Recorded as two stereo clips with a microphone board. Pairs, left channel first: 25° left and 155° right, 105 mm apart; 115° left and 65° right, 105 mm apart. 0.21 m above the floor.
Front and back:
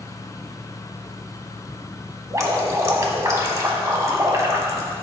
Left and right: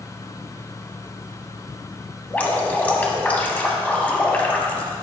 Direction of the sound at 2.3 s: 175° left.